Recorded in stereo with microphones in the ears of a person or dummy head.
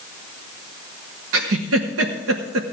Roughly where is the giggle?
Right.